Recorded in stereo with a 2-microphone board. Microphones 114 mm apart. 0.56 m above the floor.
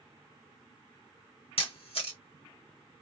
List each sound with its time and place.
1.6 s a camera shutter: 60° left (ahead or behind), 1.5 m